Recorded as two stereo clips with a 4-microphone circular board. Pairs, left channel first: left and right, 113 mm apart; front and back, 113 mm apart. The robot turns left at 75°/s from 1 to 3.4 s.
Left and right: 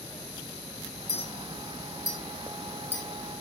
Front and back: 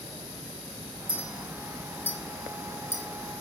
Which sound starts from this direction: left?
A clink, at 1.1 s.